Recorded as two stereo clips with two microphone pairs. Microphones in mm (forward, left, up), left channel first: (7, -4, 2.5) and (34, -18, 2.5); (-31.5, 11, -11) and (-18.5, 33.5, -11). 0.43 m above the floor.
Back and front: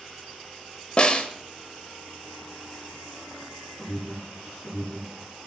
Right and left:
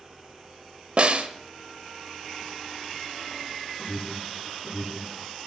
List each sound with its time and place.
1.0 s a snare drum: 100° left, 0.9 m
3.8 s an alarm: 160° right, 6.5 m